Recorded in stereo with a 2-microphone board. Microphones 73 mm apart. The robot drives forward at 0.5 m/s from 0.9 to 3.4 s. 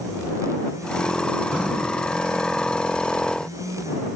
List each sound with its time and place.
1.5 s breathing: 15° right (ahead or behind), 3 m